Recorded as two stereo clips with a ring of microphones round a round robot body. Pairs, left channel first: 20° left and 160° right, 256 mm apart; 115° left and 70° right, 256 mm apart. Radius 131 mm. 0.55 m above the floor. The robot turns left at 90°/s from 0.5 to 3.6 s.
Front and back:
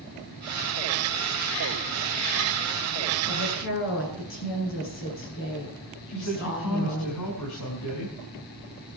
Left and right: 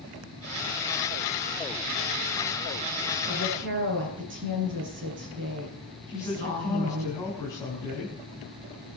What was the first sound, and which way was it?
A woman speaking, 10° left.